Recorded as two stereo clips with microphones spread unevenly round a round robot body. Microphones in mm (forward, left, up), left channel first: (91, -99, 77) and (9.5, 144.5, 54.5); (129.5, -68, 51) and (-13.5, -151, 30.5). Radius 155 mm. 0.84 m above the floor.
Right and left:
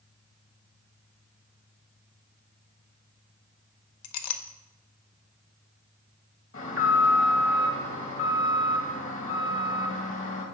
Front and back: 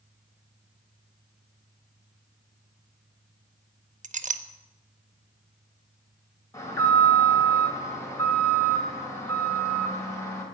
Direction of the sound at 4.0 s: 100° right.